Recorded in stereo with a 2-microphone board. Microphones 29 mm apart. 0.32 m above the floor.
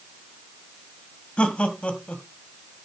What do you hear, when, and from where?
1.4 s laughter: 45° left (ahead or behind), 1.9 m